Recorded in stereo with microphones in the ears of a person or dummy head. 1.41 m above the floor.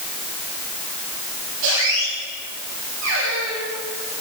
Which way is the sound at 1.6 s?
75° right (ahead or behind).